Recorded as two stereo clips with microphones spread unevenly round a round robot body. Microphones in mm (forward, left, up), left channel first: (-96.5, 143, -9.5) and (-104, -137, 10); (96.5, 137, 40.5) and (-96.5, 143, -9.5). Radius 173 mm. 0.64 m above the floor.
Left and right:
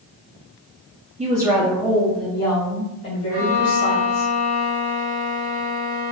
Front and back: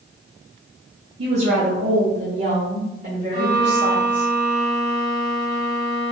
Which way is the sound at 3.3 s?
60° right.